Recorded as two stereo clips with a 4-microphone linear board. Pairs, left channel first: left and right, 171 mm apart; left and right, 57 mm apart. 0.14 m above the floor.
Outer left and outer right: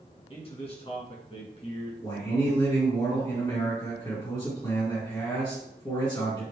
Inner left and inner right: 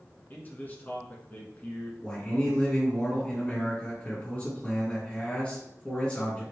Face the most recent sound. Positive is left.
turn(degrees=25)  # may be behind; listen again after turning